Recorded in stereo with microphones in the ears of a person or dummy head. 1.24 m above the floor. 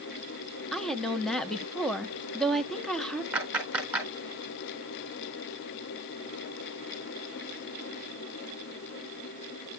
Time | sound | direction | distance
0.7 | a woman speaking | 10° left (ahead or behind) | 1.0 m
3.3 | a clap | 5° right (ahead or behind) | 4.5 m